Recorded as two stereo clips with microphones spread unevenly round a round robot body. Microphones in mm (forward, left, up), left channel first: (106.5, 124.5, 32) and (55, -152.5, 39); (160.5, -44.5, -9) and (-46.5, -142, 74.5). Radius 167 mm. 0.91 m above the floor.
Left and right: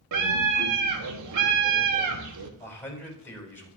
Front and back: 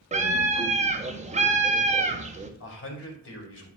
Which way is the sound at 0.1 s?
85° right.